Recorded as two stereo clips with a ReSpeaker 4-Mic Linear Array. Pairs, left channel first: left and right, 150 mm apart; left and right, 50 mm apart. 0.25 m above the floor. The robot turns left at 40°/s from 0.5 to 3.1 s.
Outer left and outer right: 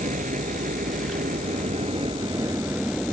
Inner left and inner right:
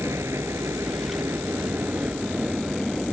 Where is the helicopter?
75° right; by 3.1 s straight behind.